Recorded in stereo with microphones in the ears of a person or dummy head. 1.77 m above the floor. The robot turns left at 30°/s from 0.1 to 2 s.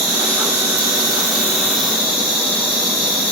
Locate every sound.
0.0 s an insect: 95° right, 5.5 m; by 3.3 s 150° right, 5.5 m